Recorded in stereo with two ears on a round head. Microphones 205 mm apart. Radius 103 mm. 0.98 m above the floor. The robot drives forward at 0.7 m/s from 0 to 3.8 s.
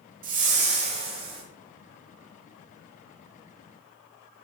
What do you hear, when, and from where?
0.2 s a whoosh: 40° right (ahead or behind), 1.1 m; by 1.4 s 25° right (ahead or behind), 1.8 m